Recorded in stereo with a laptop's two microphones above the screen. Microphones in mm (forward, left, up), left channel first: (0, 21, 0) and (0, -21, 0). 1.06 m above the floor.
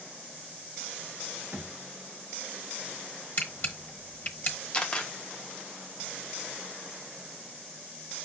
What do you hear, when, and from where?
1.5 s a thud: 55° right (ahead or behind), 0.7 m
3.4 s a camera shutter: 40° left (ahead or behind), 1.1 m
4.7 s a camera shutter: 25° left (ahead or behind), 0.7 m